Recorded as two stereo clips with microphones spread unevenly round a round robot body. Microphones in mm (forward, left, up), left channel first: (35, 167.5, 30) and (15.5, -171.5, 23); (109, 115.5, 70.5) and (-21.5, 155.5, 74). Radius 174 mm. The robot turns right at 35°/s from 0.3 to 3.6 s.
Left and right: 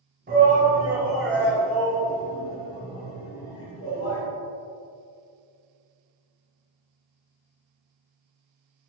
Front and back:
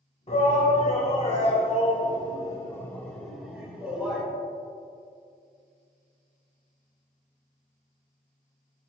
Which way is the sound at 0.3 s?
45° right.